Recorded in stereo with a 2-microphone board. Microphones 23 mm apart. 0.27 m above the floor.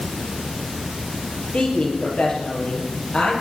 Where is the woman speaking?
75° left (ahead or behind), 6 m.